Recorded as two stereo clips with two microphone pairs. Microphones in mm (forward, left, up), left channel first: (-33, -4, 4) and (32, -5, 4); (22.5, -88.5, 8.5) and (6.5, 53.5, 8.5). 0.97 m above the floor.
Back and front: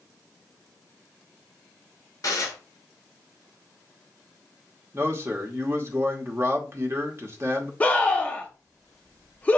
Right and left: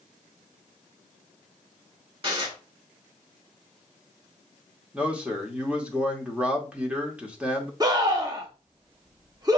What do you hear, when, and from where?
2.2 s dishes clattering: 145° left, 2.5 m
4.9 s a man speaking: 20° left, 1.1 m
7.8 s a scream: 130° left, 0.8 m